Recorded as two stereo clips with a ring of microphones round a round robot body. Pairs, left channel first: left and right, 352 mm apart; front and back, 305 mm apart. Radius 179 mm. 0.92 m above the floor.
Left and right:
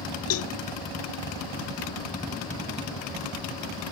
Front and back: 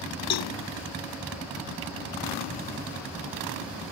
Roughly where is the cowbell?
Ahead left.